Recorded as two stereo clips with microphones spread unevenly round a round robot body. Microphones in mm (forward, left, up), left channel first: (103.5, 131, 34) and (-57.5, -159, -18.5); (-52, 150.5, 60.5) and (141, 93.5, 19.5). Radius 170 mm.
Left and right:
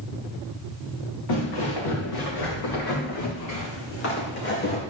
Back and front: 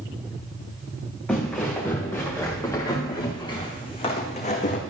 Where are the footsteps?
80° left, 4 m; by 4.8 s 120° left, 2.5 m.